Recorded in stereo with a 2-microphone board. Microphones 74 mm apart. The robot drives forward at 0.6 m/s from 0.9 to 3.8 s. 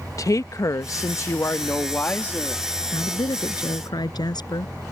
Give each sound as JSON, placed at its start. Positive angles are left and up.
{"t": 0.2, "sound": "a woman speaking", "side_deg": 50}
{"t": 2.9, "sound": "a woman speaking", "side_deg": 75}